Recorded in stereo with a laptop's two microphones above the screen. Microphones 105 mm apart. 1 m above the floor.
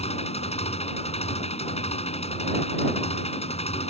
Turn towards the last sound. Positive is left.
turn(degrees=85)